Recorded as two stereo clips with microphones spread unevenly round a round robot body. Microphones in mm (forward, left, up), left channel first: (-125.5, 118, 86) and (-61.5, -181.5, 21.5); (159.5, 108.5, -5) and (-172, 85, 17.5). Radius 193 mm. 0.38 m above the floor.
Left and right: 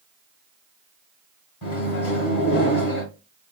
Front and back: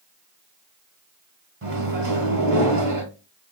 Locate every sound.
1.6 s a microwave: 130° left, 2.5 m